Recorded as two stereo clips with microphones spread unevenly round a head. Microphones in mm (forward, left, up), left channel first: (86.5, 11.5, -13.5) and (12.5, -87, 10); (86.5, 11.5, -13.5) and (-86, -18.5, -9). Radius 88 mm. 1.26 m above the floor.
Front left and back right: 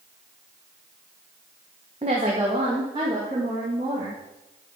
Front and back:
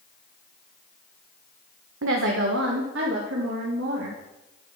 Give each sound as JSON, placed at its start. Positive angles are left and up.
{"t": 2.0, "sound": "a woman speaking", "azimuth_deg": 170, "distance_m": 1.0}